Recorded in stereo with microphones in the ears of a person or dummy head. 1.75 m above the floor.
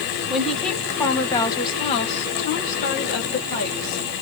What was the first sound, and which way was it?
A woman speaking, centre (ahead or behind).